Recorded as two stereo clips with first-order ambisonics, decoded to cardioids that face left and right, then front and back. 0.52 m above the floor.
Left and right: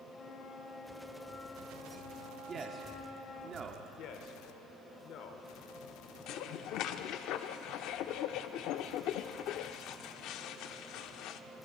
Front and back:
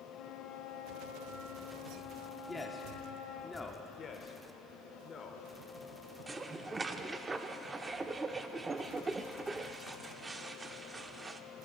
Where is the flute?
30° left, 1.1 m.